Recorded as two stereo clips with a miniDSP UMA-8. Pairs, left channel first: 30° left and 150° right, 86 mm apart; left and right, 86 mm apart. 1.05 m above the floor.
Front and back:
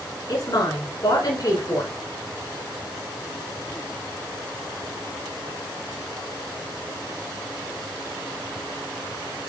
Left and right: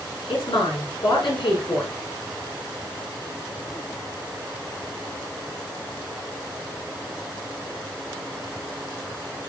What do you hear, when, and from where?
0.3 s a woman speaking: 70° left, 8 m